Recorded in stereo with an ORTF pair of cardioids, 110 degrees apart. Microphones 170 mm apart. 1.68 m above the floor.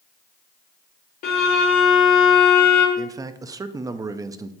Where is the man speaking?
20° right, 0.6 m.